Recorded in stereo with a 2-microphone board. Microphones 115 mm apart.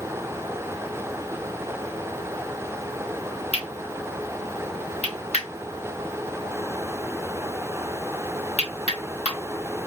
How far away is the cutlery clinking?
About 1.2 m.